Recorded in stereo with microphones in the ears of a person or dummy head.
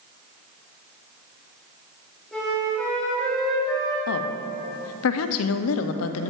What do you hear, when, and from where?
2.3 s a flute: 5° left (ahead or behind), 2.5 m
4.1 s a woman speaking: 75° left (ahead or behind), 0.6 m